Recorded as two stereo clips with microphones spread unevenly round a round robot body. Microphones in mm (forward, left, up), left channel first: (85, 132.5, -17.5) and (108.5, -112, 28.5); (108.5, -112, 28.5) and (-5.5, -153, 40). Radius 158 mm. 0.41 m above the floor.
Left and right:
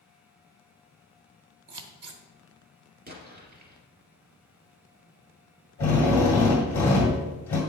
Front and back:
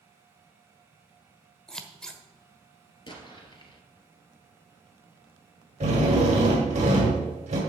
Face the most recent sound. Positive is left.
turn(degrees=170)